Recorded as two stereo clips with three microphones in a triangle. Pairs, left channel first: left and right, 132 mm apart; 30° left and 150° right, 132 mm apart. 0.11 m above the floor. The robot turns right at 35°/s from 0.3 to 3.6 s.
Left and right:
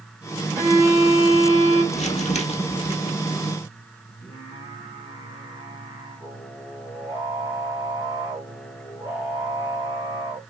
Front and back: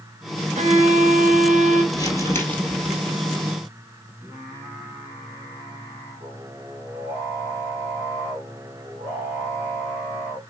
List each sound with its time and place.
0.6 s a violin: 165° right, 2 m; by 1.8 s 120° right, 2 m
1.9 s crumpling: 85° left, 1.8 m; by 3.0 s 120° left, 1.8 m
4.2 s singing: 145° left, 3.5 m